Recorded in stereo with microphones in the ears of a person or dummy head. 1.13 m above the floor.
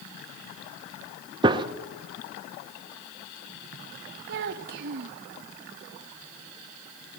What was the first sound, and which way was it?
A gunshot, 25° right (ahead or behind).